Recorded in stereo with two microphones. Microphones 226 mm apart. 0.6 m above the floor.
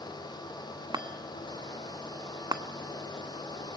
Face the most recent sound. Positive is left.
turn(degrees=-20)  # may be behind; listen again after turning